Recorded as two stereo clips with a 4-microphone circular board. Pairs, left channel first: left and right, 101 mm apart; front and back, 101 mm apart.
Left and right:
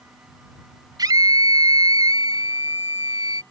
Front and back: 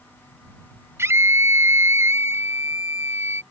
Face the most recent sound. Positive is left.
turn(degrees=-125)